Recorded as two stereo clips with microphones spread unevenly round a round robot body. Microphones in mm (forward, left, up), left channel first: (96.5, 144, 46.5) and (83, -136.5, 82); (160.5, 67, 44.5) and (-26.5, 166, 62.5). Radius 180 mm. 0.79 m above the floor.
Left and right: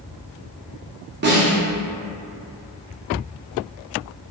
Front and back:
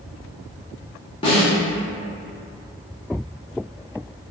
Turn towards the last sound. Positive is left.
turn(degrees=-60)